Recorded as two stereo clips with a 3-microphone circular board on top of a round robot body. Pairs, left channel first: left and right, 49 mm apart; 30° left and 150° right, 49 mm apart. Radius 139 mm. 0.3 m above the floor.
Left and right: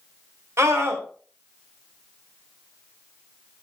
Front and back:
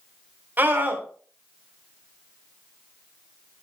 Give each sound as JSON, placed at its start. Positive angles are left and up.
{"t": 0.6, "sound": "a scream", "azimuth_deg": -100, "distance_m": 3.5}